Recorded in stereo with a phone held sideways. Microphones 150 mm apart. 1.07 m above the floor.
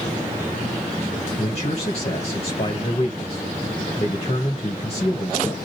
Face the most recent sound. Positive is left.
turn(degrees=45)  # may be behind; listen again after turning